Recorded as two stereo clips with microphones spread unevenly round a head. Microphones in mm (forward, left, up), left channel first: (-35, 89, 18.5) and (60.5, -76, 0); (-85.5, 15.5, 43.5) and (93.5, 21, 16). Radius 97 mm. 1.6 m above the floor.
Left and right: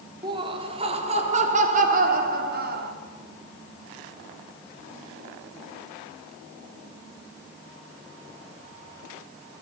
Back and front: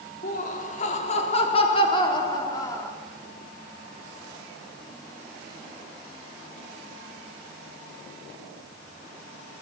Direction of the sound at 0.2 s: 130° right.